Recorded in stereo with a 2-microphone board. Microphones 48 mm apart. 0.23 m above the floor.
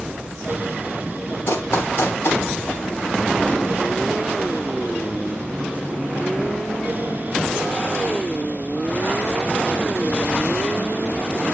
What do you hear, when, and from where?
1.5 s running footsteps: 60° left (ahead or behind), 2.5 m